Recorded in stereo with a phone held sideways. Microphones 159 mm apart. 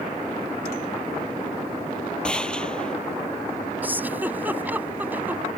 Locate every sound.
2.2 s a gunshot: 5° left (ahead or behind)
3.8 s a giggle: 10° right (ahead or behind)